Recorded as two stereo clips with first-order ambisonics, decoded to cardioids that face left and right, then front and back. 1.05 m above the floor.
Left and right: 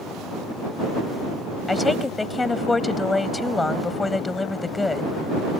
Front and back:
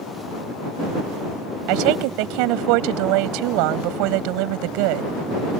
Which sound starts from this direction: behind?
A woman speaking, at 1.7 s.